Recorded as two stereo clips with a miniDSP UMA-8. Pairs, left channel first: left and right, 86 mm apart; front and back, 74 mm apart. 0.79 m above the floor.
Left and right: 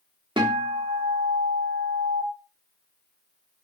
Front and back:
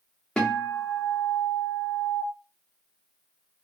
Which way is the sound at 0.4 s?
75° right.